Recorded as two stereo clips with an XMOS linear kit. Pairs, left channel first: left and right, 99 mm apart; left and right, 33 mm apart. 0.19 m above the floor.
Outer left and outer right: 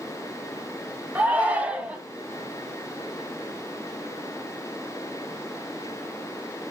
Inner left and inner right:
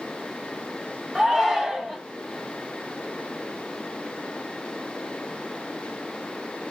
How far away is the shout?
About 1.2 m.